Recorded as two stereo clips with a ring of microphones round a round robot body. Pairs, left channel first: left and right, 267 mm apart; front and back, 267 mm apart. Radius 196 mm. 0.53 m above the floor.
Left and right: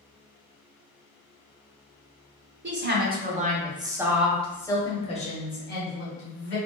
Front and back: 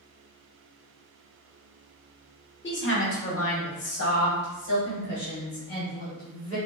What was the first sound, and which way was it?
A woman speaking, 45° right.